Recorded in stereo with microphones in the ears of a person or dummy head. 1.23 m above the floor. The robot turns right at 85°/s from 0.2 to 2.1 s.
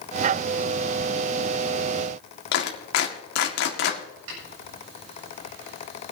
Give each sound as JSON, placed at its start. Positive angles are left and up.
{"t": 2.5, "sound": "a clap", "side_deg": 60, "distance_m": 2.0}
{"t": 4.3, "sound": "a snare drum", "side_deg": -85, "distance_m": 7.5}